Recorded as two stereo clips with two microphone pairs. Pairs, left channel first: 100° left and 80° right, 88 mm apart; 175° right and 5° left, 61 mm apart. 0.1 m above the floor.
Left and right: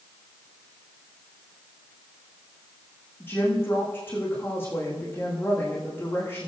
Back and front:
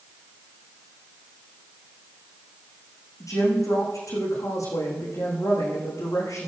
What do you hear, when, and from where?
3.2 s a woman speaking: 165° left, 7 m